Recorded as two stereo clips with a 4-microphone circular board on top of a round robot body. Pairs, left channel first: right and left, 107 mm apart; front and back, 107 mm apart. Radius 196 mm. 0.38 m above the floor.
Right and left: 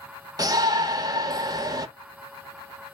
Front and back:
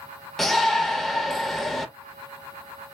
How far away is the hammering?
No hammering in this recording.